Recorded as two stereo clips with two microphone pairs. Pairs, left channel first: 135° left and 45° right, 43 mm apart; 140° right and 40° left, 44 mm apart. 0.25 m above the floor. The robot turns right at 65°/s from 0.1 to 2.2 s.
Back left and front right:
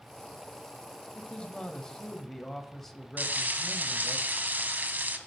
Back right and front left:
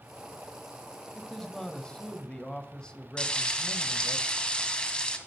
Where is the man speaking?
140° left, 0.9 m; by 4.2 s 150° right, 0.9 m.